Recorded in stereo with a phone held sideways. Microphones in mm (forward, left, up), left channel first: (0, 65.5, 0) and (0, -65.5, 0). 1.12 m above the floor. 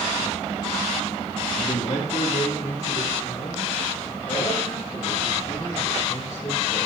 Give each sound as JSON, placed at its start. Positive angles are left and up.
{"t": 1.6, "sound": "a man speaking", "side_deg": 60, "distance_m": 1.1}